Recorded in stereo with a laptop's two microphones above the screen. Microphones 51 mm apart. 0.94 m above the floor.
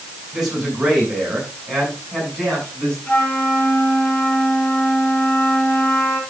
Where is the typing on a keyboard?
No typing on a keyboard in this recording.